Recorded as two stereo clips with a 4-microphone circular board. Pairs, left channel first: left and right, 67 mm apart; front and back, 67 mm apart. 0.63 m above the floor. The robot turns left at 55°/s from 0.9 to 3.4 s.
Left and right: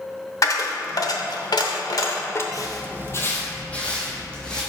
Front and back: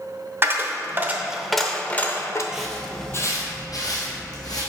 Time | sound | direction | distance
0.4 | a dropped coin | 125° left | 0.7 m
2.5 | footsteps | 100° left | 1.0 m